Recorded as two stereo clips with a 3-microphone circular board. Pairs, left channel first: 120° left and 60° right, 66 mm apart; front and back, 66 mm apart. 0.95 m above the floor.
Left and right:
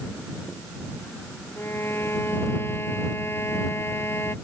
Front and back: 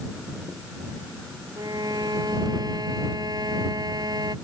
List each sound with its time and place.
1.6 s a violin: 170° left